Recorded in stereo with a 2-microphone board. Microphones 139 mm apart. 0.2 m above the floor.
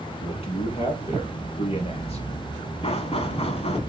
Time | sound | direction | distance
0.2 | a man speaking | 45° left (ahead or behind) | 2.5 m
2.8 | knocking | 45° left (ahead or behind) | 1.1 m